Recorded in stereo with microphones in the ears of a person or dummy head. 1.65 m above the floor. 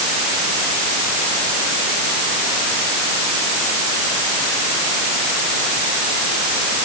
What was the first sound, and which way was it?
Only background noise.